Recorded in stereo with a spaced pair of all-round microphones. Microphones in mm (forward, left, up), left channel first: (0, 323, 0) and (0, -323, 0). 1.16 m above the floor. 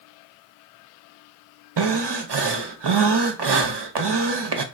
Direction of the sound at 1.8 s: 40° right (ahead or behind).